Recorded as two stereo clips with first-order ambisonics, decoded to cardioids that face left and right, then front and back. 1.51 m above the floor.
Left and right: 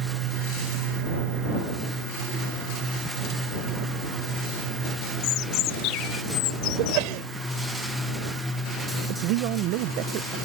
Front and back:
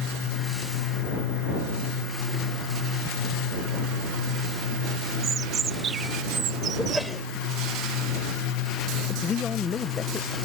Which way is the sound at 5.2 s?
120° left.